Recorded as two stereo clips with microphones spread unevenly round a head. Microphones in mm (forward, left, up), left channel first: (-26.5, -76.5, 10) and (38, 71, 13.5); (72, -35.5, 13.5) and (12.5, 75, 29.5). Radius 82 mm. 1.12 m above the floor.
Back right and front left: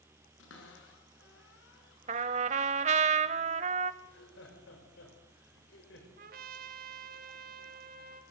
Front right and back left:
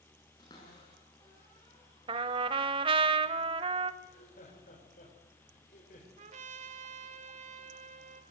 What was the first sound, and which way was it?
A cupboard door, 130° right.